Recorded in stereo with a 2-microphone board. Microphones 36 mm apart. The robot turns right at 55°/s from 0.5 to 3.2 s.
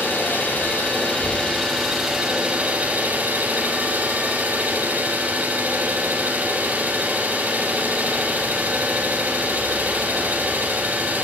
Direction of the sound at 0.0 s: 100° left.